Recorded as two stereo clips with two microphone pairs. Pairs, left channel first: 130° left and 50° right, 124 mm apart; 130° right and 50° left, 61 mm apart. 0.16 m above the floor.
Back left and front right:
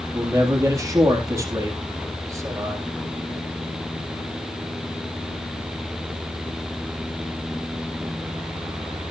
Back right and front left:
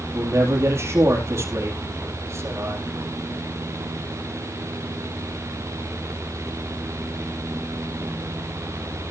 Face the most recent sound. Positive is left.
turn(degrees=15)